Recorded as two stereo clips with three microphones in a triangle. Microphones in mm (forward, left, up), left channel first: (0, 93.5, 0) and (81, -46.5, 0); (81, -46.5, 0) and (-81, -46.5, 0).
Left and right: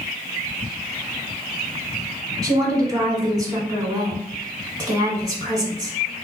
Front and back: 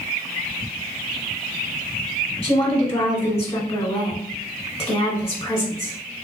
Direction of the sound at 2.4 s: 10° right.